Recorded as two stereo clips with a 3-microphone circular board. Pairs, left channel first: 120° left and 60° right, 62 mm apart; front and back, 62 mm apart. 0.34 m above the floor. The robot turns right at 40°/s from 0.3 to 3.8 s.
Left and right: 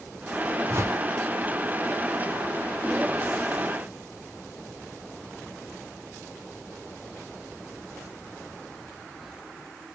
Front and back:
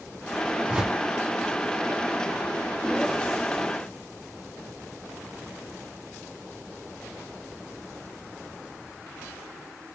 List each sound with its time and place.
0.7 s a whoosh: 110° right, 0.7 m; by 1.0 s 95° right, 0.7 m